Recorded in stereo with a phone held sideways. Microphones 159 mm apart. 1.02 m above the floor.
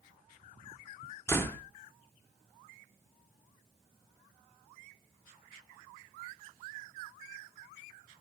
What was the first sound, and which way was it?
A door slam, 15° left (ahead or behind).